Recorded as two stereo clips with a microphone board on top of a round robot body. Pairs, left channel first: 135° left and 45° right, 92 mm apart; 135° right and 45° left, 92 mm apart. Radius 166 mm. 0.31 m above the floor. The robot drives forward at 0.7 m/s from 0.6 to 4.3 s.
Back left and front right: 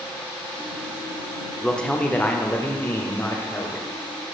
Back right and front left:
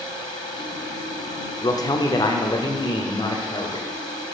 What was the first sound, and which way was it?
A man speaking, 145° right.